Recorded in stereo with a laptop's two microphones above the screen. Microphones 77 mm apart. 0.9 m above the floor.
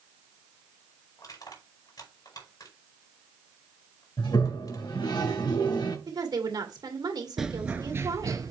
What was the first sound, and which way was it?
Crushing, 60° left (ahead or behind).